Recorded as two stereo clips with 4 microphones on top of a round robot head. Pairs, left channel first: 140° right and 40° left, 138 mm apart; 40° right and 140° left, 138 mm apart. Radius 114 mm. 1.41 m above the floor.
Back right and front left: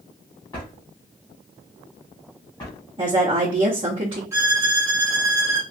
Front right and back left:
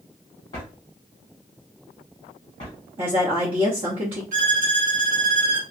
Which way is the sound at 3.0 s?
90° left.